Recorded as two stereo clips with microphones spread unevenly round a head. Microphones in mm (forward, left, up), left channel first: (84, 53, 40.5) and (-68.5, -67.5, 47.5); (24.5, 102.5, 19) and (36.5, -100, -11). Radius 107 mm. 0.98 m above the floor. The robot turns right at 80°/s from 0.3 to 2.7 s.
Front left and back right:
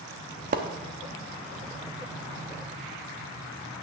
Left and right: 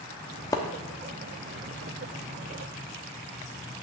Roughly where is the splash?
Behind.